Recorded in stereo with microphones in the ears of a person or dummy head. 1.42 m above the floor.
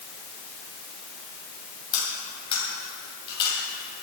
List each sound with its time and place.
1.9 s cutlery clinking: 30° left (ahead or behind), 5.5 m